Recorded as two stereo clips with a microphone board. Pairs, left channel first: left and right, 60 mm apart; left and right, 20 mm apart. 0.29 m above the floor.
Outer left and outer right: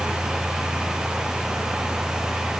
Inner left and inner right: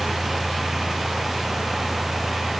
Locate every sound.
Only background noise.